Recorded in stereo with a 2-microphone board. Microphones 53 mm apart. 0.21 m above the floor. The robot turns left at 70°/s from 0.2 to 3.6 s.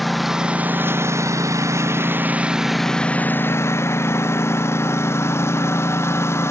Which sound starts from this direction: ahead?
A lawn mower, at 0.0 s.